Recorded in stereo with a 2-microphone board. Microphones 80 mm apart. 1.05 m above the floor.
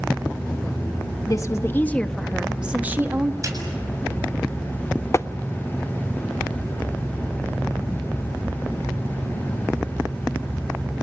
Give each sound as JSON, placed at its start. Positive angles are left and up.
{"t": 1.3, "sound": "a woman speaking", "side_deg": 45, "distance_m": 1.1}
{"t": 3.4, "sound": "a snare drum", "side_deg": -40, "distance_m": 7.5}
{"t": 5.1, "sound": "tapping", "side_deg": 35, "distance_m": 0.5}